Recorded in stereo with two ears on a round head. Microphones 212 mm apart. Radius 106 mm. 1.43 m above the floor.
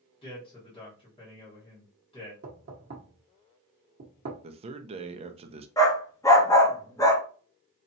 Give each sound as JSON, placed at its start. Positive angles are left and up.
{"t": 0.2, "sound": "a man speaking", "side_deg": 25, "distance_m": 1.4}
{"t": 2.4, "sound": "knocking", "side_deg": -45, "distance_m": 1.0}
{"t": 4.4, "sound": "a man speaking", "side_deg": -25, "distance_m": 0.6}
{"t": 5.8, "sound": "a dog barking", "side_deg": 15, "distance_m": 0.9}